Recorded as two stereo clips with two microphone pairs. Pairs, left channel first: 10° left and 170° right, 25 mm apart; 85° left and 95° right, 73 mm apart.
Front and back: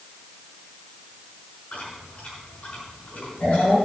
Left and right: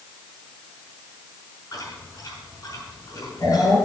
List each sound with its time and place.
1.7 s chewing: 45° left, 5.5 m